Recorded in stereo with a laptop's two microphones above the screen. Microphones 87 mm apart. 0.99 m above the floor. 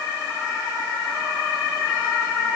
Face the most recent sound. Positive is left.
No sound to turn to.